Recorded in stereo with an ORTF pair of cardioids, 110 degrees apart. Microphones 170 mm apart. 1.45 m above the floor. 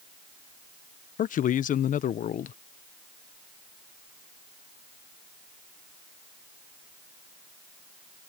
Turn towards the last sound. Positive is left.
turn(degrees=50)